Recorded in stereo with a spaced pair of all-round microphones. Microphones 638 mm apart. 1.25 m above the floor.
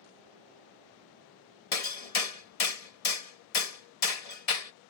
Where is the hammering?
65° left (ahead or behind).